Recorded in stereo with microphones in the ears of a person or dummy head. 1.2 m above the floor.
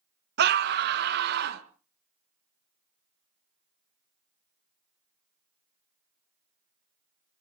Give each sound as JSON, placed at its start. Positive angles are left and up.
{"t": 0.4, "sound": "a scream", "side_deg": -55, "distance_m": 1.4}